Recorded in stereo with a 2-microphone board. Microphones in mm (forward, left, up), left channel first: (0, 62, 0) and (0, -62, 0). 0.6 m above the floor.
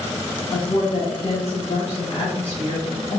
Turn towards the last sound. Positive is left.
turn(degrees=55)  # may be behind; listen again after turning